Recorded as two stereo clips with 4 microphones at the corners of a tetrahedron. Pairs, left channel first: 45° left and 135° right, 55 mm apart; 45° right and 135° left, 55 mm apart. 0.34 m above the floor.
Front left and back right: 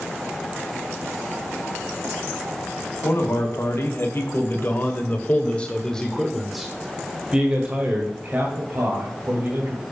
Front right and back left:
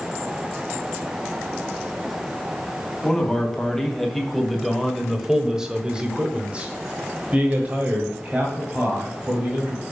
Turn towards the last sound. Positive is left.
turn(degrees=-170)